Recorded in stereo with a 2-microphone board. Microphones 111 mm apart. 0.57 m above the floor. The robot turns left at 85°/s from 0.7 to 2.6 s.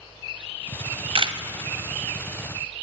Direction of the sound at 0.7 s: 60° right (ahead or behind).